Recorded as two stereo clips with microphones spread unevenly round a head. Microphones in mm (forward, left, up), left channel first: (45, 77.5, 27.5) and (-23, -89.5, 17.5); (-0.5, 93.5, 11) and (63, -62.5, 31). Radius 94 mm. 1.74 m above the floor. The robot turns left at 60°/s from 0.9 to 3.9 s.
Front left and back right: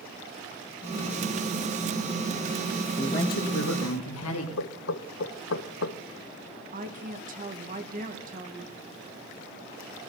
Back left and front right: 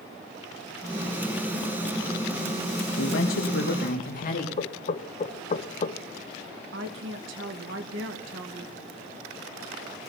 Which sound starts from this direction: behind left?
A woman speaking, at 3.0 s.